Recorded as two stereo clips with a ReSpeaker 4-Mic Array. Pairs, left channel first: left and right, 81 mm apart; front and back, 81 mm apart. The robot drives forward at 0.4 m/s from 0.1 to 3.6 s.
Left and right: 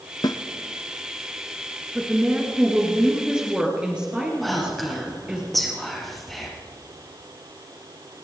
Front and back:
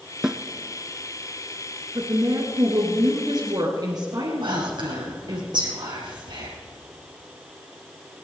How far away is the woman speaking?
About 2 m.